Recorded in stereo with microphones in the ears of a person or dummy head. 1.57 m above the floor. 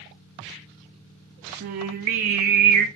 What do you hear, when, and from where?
1.6 s singing: 40° right (ahead or behind), 0.6 m